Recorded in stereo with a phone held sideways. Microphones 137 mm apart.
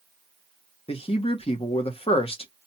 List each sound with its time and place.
0.9 s a man speaking: 40° left (ahead or behind), 0.9 m